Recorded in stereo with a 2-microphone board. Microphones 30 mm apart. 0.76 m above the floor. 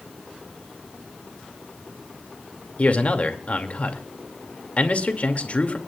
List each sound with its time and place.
2.8 s a man speaking: 45° left (ahead or behind), 2.5 m